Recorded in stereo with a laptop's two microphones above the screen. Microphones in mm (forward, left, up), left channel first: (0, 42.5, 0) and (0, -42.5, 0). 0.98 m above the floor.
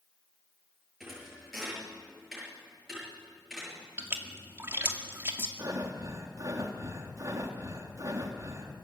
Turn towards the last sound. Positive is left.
turn(degrees=-40)  # may be behind; listen again after turning